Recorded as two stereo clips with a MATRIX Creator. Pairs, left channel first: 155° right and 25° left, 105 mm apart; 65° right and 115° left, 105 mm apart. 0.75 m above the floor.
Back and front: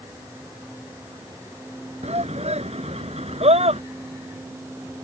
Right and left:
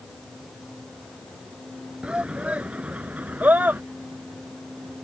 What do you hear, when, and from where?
2.0 s a shout: 30° left; by 3.8 s 40° left